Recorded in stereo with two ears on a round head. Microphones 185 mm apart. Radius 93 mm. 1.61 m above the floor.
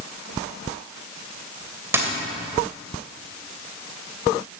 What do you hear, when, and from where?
1.9 s a dropped coin: 10° right (ahead or behind), 2.5 m